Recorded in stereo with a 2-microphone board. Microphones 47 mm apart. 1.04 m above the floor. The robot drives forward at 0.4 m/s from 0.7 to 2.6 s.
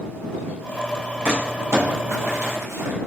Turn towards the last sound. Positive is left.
turn(degrees=-80)